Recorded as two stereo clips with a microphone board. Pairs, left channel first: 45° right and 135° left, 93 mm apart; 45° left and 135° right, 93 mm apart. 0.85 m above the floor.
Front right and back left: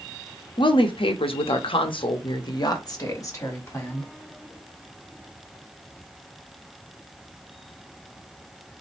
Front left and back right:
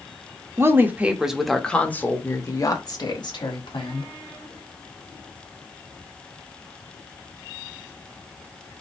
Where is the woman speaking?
75° right, 1.0 m; by 4.1 s 20° left, 1.6 m.